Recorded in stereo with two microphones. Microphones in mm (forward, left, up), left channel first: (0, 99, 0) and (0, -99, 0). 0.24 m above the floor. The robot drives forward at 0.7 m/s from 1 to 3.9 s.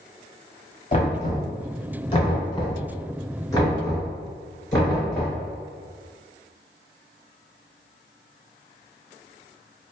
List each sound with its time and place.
0.9 s knocking: 35° left (ahead or behind), 1.2 m; by 5.4 s 15° left (ahead or behind), 2.5 m